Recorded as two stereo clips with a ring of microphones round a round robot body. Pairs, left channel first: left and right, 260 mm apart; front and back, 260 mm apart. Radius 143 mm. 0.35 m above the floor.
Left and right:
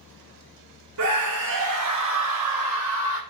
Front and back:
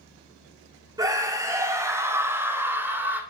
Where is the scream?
105° right, 3.5 m; by 3.2 s 100° right, 5 m.